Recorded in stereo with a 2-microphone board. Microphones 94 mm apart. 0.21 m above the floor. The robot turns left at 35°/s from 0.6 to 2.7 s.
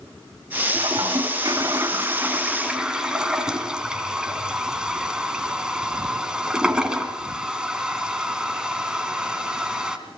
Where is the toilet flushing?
50° right (ahead or behind), 2 m; by 10.0 s 10° right (ahead or behind), 2 m.